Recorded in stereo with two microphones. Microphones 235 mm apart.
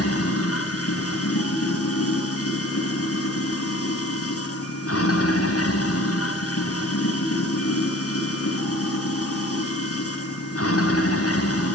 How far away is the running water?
About 4 m.